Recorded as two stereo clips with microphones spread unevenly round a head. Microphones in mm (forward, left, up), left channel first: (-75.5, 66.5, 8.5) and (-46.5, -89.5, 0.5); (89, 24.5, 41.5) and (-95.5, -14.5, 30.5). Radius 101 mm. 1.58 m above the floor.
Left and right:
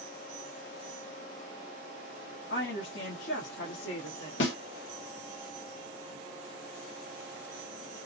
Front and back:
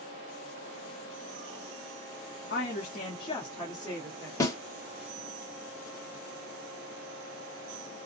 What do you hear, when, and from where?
2.5 s a woman speaking: 55° left, 0.9 m; by 4.3 s 90° left, 1.5 m
4.4 s a snare drum: 85° left, 1.3 m